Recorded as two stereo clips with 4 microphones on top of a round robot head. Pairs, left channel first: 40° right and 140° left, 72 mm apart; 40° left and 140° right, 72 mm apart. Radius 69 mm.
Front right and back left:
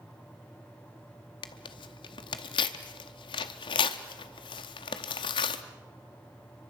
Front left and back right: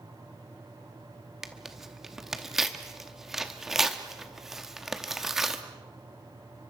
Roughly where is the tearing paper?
Ahead right.